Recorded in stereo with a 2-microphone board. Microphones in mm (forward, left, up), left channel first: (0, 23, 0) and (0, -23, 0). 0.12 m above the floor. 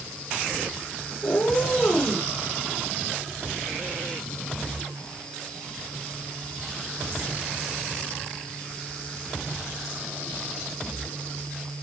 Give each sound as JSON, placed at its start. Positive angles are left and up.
{"t": 1.2, "sound": "a cat meowing", "side_deg": 45, "distance_m": 6.5}